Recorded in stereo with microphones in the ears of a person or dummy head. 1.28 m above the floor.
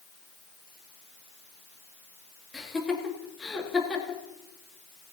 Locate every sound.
2.5 s laughter: 5° left (ahead or behind), 2 m